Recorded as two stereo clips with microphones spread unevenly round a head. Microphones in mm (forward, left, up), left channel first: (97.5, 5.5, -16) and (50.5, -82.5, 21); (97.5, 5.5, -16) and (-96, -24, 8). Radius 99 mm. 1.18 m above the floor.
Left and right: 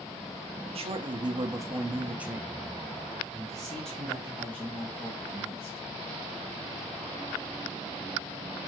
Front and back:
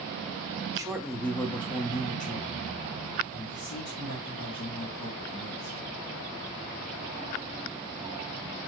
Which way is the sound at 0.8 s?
100° right.